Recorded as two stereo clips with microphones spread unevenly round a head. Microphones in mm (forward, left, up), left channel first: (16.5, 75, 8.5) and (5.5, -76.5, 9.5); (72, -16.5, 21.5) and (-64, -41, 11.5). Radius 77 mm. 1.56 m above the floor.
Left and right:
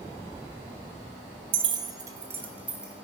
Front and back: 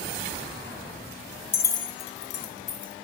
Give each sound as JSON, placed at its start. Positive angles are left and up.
{"t": 1.5, "sound": "keys jangling", "azimuth_deg": -55, "distance_m": 0.5}